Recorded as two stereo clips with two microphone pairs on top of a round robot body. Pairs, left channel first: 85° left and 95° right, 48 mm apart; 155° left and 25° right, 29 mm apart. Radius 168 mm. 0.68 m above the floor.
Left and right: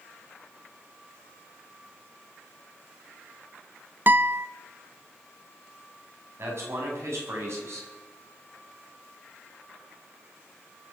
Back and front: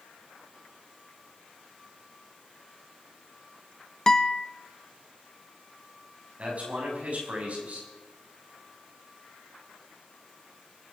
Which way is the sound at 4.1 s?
130° right.